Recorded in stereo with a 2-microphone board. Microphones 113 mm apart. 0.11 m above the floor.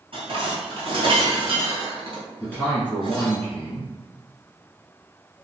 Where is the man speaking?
15° left (ahead or behind), 1.4 m.